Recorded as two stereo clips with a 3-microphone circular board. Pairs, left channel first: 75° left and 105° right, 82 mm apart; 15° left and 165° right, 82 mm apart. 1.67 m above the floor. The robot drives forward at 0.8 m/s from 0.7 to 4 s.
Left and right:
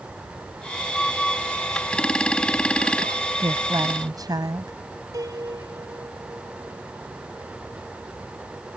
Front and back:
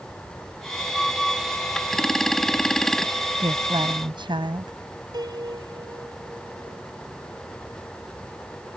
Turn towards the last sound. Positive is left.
turn(degrees=-140)